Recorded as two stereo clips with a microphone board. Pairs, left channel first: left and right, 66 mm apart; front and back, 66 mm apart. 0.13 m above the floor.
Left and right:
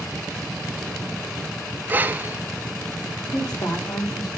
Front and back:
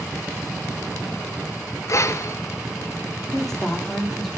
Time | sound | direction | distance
1.9 | breathing | 30° right | 0.6 m
3.3 | a woman speaking | 85° left | 5 m